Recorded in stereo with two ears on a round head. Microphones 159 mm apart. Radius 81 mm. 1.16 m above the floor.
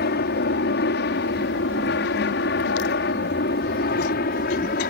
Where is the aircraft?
60° left (ahead or behind); by 4.9 s 50° left (ahead or behind).